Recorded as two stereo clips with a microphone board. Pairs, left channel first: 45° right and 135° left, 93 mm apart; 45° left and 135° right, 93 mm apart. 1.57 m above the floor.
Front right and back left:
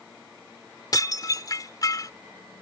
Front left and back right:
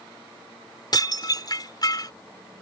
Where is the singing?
No singing in this recording.